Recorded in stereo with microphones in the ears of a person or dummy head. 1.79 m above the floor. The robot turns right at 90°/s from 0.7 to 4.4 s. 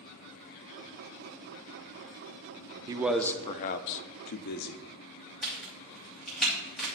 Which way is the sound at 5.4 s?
Centre (ahead or behind).